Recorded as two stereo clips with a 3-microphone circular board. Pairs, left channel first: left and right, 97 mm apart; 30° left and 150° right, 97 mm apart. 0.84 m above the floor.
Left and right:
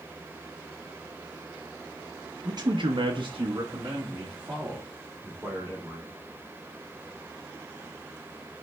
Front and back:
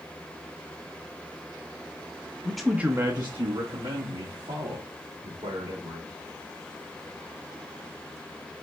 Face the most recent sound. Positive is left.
turn(degrees=-165)